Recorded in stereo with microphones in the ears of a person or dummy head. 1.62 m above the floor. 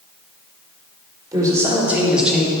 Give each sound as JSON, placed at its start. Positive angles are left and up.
{"t": 1.3, "sound": "a man speaking", "side_deg": -15, "distance_m": 3.5}